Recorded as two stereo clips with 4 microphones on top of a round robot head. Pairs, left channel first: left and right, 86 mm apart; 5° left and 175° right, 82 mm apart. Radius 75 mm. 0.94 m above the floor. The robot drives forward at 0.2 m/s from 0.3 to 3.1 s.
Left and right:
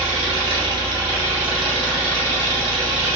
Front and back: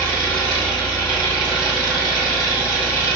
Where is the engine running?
70° right, 1.2 m; by 3.2 s 105° right, 1.1 m.